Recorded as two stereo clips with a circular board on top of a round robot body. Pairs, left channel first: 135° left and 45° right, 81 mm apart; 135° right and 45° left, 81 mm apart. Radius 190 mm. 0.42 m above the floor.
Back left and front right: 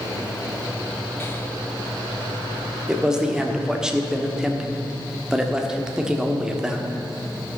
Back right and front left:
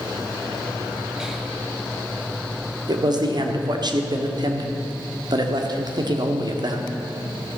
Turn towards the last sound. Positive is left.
turn(degrees=35)